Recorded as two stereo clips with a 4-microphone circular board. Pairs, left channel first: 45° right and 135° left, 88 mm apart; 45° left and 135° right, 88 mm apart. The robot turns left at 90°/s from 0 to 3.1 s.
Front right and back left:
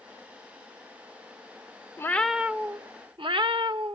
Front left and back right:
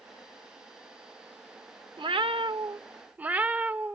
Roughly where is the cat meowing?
Right.